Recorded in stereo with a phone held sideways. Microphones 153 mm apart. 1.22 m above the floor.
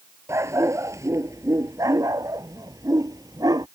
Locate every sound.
0.3 s a dog barking: 15° right (ahead or behind); by 3.7 s 25° right (ahead or behind)